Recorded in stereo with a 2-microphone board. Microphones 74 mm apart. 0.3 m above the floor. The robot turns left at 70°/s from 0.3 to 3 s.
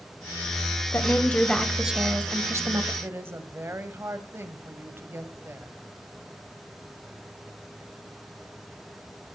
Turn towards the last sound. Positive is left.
turn(degrees=-30)  # may be behind; listen again after turning